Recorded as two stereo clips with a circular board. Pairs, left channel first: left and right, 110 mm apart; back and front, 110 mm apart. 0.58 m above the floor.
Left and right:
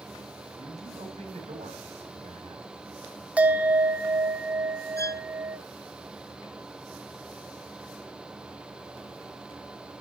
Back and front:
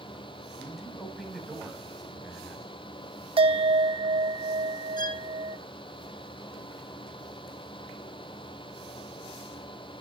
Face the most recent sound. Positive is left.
turn(degrees=145)